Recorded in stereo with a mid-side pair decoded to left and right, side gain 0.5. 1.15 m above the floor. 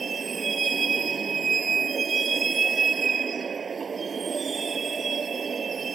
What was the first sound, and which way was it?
A vehicle, 40° right.